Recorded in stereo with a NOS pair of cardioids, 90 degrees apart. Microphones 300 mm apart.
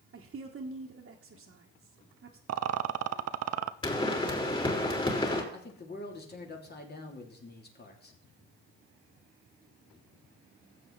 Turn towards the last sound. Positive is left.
turn(degrees=35)